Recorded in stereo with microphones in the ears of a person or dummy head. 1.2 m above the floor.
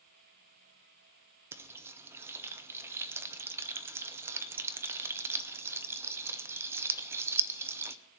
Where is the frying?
15° right (ahead or behind), 0.6 m.